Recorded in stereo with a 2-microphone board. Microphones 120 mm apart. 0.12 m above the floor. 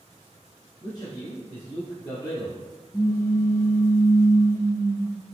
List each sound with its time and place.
0.8 s a man speaking: 35° left (ahead or behind), 1.5 m; by 2.6 s 40° left (ahead or behind), 1.7 m
2.9 s a pop: 25° left (ahead or behind), 0.6 m